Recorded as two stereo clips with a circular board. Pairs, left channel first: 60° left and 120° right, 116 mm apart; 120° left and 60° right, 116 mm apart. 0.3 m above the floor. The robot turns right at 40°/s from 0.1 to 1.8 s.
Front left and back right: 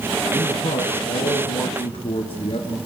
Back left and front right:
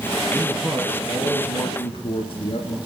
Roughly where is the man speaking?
Ahead left.